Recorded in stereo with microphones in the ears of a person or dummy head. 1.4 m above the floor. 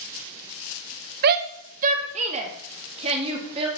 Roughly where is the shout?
Right.